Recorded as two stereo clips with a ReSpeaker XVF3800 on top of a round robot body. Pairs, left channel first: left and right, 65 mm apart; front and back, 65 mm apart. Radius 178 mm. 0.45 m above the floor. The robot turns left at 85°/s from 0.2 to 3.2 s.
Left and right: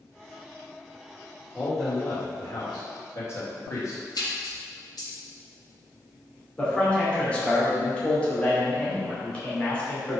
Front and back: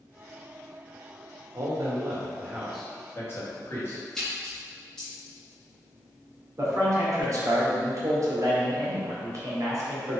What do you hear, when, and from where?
1.5 s a man speaking: 170° right, 2.5 m; by 4.0 s 50° left, 2.5 m
4.2 s a splash: 80° left, 2.5 m
6.6 s a man speaking: 160° left, 2.5 m